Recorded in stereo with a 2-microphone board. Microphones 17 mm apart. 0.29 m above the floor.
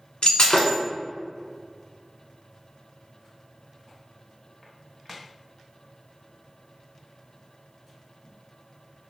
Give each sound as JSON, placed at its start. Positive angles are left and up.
{"t": 0.2, "sound": "breaking glass", "side_deg": 70, "distance_m": 1.1}